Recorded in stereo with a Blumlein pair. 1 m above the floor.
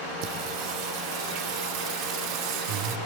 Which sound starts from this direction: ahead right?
Singing, at 0.2 s.